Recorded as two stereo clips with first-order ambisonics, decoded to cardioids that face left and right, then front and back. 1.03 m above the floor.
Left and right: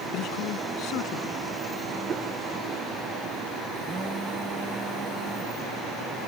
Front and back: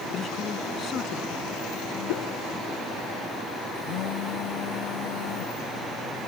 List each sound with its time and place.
0.1 s a man speaking: 60° left
2.1 s a whoosh: 25° right
3.8 s a phone buzzing: 10° right